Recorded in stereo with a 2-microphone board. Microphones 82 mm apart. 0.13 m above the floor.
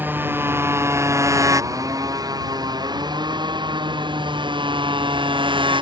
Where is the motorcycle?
25° right (ahead or behind); by 5.8 s 85° right.